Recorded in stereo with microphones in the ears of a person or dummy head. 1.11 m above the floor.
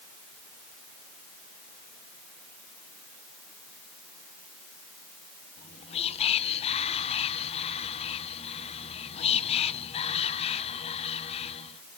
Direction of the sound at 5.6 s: 30° left (ahead or behind).